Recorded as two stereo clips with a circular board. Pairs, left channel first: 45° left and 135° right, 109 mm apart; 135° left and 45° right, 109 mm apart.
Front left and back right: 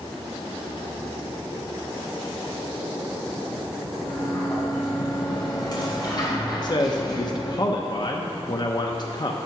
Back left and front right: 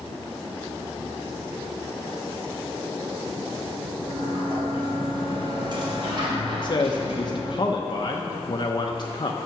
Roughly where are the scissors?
I don't hear scissors.